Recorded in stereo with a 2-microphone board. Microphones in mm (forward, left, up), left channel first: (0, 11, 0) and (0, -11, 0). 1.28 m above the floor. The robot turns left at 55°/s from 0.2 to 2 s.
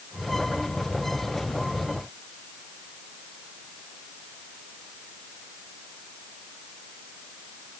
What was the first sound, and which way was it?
Only background noise.